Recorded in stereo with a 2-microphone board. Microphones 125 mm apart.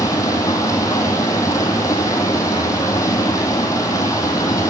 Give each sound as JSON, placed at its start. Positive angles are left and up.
{"t": 0.0, "sound": "running water", "side_deg": 25, "distance_m": 2.0}